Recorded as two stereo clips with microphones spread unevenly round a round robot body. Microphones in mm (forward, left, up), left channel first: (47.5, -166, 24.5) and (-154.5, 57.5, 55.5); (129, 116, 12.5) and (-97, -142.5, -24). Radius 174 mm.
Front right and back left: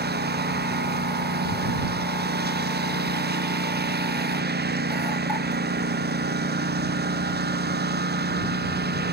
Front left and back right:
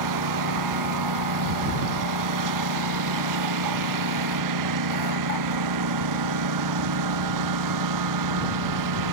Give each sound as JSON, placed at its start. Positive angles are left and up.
{"t": 0.0, "sound": "a lawn mower", "azimuth_deg": -170}